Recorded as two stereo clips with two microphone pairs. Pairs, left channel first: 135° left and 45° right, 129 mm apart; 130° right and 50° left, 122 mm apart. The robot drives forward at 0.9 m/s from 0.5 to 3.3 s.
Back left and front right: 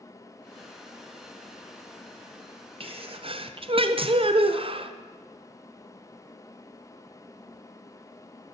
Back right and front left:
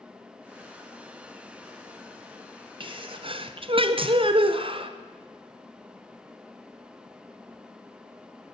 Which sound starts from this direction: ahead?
A sneeze, at 2.8 s.